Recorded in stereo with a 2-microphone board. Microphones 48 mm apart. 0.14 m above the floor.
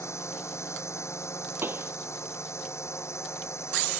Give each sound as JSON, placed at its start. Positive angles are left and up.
{"t": 0.0, "sound": "a drone", "side_deg": 80}
{"t": 1.6, "sound": "a pop", "side_deg": -55}